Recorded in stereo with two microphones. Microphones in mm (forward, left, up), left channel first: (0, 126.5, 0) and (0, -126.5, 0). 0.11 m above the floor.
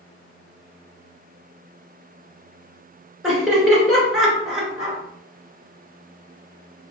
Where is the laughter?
Centre (ahead or behind), 2.0 m.